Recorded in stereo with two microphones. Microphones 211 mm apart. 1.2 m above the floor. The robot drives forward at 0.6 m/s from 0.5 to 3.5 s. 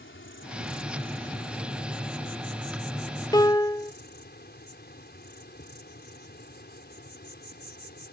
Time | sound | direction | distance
0.0 | an insect | 75° left (ahead or behind) | ?
3.3 | a piano | 20° left (ahead or behind) | ?